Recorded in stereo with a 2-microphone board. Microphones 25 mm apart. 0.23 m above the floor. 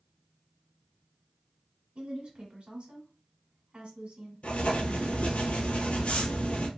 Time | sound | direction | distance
1.9 | a woman speaking | 55° right (ahead or behind) | 1.5 m
4.4 | writing | 70° left (ahead or behind) | 0.8 m